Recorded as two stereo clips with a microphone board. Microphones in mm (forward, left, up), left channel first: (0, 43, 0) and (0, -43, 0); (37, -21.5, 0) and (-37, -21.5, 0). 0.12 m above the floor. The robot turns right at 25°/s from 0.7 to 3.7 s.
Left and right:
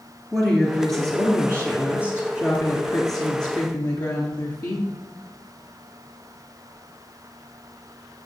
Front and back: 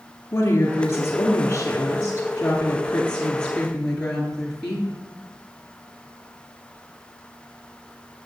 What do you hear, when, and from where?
0.3 s a woman speaking: 5° left, 1.8 m; by 4.9 s 80° left, 1.8 m